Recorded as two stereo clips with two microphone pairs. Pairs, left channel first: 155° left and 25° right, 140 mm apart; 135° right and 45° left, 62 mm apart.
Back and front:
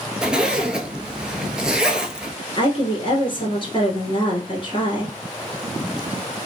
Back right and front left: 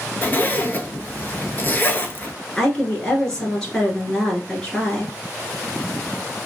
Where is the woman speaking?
155° left, 1.5 m.